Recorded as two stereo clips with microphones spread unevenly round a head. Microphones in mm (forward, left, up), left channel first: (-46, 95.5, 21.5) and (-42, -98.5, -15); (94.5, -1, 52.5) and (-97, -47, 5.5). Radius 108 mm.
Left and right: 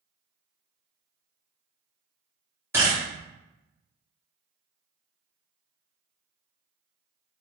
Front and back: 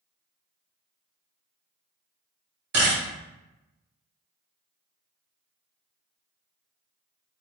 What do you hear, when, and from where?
2.7 s a camera shutter: 160° right, 1.9 m